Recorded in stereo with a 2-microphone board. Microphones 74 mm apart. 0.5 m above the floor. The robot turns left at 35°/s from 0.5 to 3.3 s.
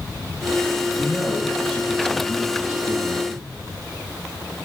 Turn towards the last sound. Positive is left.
turn(degrees=115)